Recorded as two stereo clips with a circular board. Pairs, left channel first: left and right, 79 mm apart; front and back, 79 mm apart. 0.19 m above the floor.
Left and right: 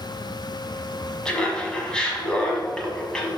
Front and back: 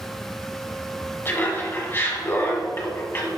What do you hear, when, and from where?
1.2 s laughter: 20° left, 1.3 m